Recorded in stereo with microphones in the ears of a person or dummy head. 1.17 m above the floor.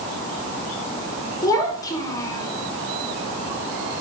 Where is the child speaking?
20° left (ahead or behind), 3.5 m.